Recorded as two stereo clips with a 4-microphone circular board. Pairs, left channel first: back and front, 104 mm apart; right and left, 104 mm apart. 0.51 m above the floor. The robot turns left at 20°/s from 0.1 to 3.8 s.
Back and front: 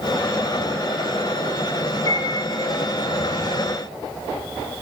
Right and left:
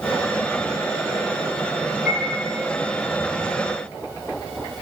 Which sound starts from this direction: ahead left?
A piano, at 2.1 s.